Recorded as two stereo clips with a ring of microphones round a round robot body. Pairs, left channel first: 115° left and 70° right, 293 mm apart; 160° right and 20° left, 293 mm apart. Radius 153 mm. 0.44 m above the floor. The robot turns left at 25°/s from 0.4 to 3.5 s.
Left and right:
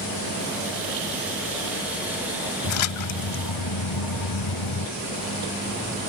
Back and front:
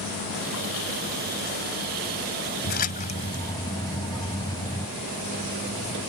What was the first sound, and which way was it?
A splash, 145° left.